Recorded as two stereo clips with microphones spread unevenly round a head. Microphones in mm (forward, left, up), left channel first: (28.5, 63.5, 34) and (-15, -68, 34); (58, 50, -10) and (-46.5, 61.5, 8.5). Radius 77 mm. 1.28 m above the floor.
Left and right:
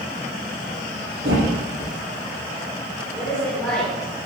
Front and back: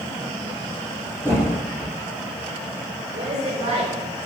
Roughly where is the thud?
Behind right.